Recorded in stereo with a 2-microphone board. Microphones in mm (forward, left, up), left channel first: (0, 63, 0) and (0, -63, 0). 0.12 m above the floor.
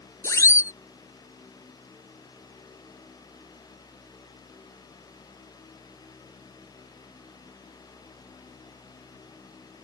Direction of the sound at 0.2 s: 25° left (ahead or behind).